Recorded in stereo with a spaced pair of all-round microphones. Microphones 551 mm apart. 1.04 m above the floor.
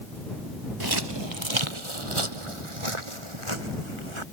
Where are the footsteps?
40° right (ahead or behind); by 4.2 s 60° right (ahead or behind).